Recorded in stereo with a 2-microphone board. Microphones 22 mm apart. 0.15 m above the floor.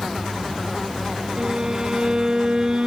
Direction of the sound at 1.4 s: 35° right (ahead or behind).